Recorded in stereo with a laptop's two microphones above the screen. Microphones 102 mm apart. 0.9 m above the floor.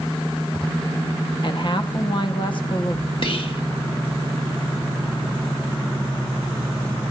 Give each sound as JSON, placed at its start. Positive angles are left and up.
{"t": 1.4, "sound": "a woman speaking", "side_deg": 50, "distance_m": 1.4}
{"t": 3.2, "sound": "whispering", "side_deg": 60, "distance_m": 1.8}